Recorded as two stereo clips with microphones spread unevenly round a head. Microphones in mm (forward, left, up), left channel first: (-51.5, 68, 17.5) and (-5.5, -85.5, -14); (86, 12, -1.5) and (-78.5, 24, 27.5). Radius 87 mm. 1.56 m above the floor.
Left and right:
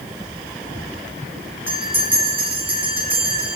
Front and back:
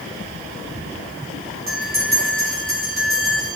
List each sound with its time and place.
1.7 s a bell: 155° right, 4 m